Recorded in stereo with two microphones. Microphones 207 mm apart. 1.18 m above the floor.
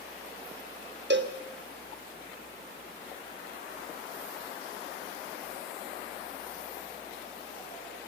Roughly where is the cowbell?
Right.